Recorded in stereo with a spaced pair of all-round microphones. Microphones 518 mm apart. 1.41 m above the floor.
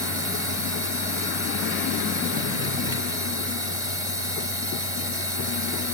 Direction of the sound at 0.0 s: 70° left (ahead or behind).